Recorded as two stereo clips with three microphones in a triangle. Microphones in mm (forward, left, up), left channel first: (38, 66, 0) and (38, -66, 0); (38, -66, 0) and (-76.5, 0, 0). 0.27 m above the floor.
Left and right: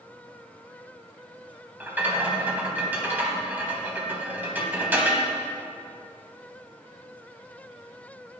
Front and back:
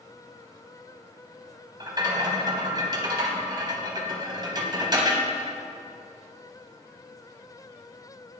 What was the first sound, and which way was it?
A rattle, 160° right.